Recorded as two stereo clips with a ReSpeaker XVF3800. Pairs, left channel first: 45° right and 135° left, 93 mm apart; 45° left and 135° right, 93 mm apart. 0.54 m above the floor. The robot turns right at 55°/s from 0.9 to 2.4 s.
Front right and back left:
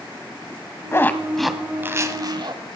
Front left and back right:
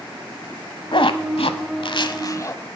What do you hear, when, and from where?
0.9 s a zipper: 20° left, 0.9 m; by 2.6 s 100° left, 0.9 m